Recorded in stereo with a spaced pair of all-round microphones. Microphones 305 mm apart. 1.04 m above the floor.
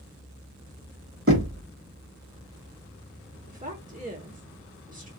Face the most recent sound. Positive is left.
turn(degrees=-25)  # may be behind; listen again after turning